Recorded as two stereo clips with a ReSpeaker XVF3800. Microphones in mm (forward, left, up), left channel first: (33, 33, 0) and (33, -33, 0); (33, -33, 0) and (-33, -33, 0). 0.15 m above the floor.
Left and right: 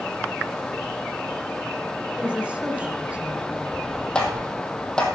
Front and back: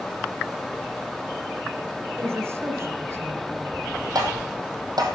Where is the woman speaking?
155° right, 1.9 m.